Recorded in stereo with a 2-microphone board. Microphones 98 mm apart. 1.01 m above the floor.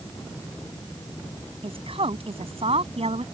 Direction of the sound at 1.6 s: 60° right (ahead or behind).